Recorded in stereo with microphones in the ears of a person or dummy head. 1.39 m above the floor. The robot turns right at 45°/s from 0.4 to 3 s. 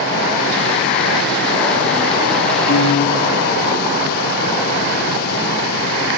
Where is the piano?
70° left (ahead or behind), 4 m; by 3.3 s 85° left, 4 m.